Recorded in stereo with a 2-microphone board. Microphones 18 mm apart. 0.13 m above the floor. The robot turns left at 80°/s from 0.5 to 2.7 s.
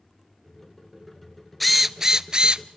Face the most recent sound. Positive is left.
turn(degrees=-80)